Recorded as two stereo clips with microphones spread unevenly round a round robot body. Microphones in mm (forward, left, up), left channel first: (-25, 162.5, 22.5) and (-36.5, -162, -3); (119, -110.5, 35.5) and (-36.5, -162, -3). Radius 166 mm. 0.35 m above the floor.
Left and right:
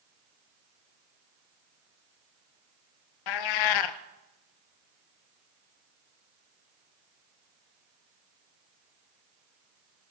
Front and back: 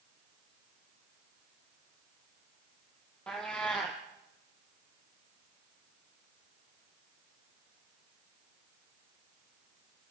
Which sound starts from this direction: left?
A cat meowing, at 3.3 s.